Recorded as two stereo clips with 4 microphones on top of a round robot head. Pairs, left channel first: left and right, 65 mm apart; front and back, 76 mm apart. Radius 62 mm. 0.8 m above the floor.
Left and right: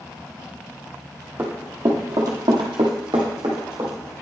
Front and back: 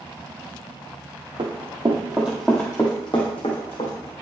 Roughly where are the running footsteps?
Behind right.